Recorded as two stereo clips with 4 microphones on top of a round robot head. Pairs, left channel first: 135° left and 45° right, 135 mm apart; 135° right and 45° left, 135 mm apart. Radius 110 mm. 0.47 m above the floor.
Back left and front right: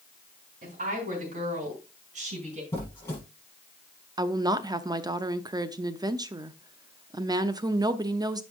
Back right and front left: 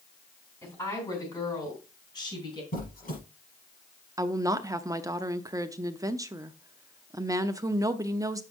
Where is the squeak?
150° right, 5.5 m.